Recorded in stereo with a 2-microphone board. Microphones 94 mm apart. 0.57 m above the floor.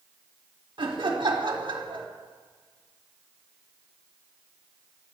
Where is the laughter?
55° right (ahead or behind), 1.3 m.